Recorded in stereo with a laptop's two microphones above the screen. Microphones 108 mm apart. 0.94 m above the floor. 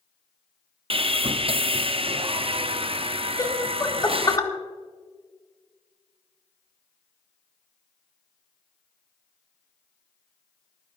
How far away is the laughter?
About 1.7 m.